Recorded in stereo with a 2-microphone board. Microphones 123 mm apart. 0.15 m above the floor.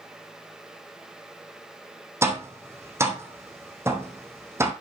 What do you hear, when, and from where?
2.2 s tapping: 20° right (ahead or behind), 3 m